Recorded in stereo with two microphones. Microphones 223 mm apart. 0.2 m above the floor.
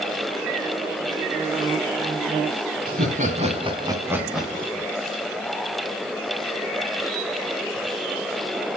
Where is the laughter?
40° right (ahead or behind), 1.5 m; by 4.9 s 15° left (ahead or behind), 1.2 m.